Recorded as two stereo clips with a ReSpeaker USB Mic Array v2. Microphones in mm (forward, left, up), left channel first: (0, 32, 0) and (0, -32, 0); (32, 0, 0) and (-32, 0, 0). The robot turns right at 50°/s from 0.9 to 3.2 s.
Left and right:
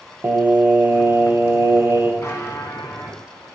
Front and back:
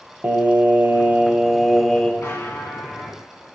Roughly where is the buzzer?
Ahead left.